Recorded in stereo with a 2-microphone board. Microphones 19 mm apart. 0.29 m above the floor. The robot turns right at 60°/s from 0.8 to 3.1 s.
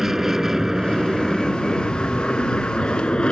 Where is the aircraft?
20° right; by 3.3 s 120° left.